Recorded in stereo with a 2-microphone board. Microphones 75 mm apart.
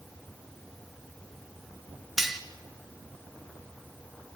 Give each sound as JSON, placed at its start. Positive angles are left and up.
{"t": 2.2, "sound": "cutlery clinking", "side_deg": -5, "distance_m": 1.6}